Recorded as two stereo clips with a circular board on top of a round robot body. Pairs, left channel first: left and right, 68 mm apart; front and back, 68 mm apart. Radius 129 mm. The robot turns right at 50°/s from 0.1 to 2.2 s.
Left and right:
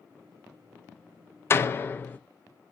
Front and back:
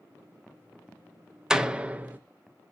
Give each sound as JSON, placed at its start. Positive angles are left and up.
{"t": 1.5, "sound": "a door slam", "azimuth_deg": 105, "distance_m": 0.5}